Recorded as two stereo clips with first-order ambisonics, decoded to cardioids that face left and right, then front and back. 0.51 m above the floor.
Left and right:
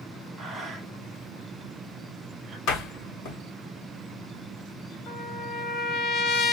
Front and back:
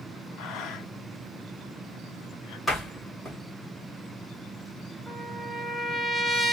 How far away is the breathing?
About 0.7 m.